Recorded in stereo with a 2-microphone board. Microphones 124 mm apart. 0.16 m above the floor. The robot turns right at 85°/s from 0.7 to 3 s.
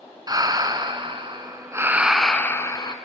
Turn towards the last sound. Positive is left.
turn(degrees=70)